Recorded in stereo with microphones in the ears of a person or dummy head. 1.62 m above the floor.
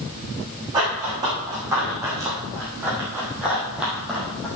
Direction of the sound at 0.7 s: 15° right (ahead or behind).